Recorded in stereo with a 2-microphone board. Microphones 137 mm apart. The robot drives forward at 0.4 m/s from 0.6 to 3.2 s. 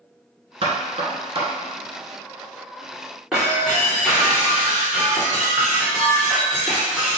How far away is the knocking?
About 1.5 m.